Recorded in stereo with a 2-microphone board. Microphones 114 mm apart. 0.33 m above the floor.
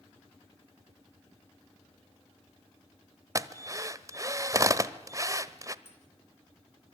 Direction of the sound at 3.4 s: 30° right (ahead or behind).